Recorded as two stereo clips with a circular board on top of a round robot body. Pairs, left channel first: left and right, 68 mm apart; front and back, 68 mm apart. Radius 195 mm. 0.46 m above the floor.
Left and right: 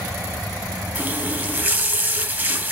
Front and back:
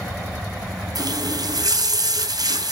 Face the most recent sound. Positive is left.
turn(degrees=-150)